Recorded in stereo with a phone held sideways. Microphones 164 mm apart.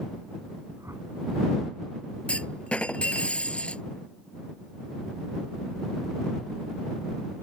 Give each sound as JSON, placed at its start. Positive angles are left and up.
{"t": 0.8, "sound": "a whoosh", "side_deg": -15}
{"t": 2.3, "sound": "a clunk", "side_deg": 5}